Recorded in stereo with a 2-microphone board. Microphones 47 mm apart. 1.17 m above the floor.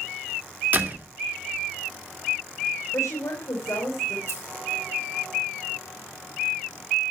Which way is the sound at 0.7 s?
40° right (ahead or behind).